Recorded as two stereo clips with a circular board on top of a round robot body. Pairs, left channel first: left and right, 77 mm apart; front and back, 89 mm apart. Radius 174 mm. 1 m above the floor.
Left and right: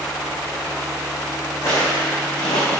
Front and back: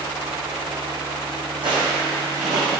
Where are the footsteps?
150° left, 3 m; by 2.8 s 125° left, 3 m.